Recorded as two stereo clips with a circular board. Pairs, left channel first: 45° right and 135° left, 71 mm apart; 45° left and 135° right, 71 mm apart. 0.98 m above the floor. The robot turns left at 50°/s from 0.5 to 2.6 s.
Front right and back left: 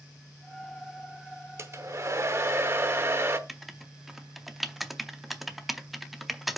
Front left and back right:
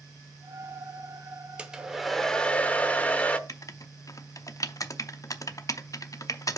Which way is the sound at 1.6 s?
160° left.